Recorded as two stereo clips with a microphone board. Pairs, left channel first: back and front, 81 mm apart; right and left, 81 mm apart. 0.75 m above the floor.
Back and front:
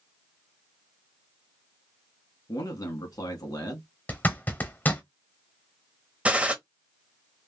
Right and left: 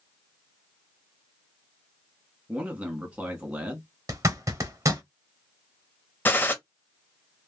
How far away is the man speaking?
About 1.2 m.